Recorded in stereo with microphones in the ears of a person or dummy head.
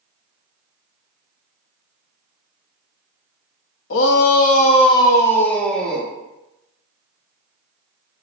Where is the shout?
80° left, 0.8 m; by 6.1 s centre (ahead or behind), 1.5 m.